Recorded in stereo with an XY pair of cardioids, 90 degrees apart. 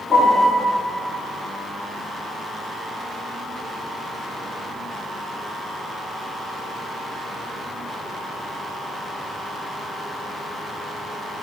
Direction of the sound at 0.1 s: 30° left.